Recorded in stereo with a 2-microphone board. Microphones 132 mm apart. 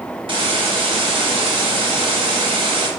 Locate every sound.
0.3 s a hiss: 45° right (ahead or behind), 0.9 m